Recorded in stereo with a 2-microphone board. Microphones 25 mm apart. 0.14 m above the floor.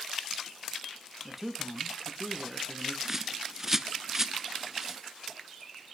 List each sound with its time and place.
1.2 s a man speaking: 10° right (ahead or behind), 1.1 m
3.0 s a bird: 15° right (ahead or behind), 0.5 m